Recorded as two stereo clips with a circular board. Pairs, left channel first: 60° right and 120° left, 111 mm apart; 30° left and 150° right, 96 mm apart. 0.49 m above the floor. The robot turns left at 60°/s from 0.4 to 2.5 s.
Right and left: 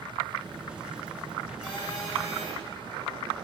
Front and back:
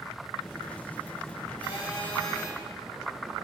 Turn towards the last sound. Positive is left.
turn(degrees=-65)